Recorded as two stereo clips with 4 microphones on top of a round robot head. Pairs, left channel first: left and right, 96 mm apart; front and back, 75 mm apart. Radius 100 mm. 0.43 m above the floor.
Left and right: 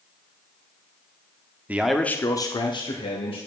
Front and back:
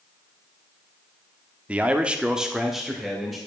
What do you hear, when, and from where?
1.7 s a man speaking: 135° right, 0.9 m; by 3.4 s 90° left, 2 m